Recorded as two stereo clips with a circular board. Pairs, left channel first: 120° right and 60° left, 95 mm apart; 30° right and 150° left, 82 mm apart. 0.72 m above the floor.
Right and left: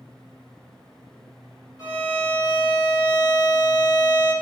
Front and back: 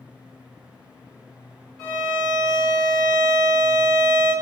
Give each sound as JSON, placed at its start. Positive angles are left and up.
{"t": 1.8, "sound": "a violin", "azimuth_deg": -105, "distance_m": 1.5}